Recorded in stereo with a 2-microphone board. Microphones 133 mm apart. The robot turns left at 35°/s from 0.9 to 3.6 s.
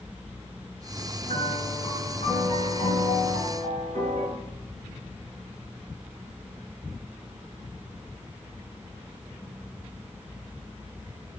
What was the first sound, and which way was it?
A piano, 145° left.